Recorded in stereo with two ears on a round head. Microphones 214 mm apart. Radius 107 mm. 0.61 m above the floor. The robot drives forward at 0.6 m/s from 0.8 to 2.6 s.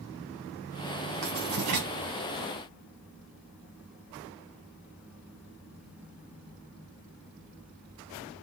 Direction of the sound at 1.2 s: 60° right (ahead or behind).